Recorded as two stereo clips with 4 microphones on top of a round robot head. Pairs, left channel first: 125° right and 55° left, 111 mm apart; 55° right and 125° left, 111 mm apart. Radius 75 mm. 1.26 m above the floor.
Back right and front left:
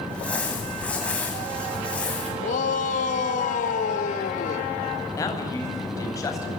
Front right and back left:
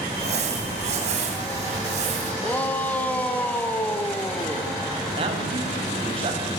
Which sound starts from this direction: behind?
A man speaking, at 5.2 s.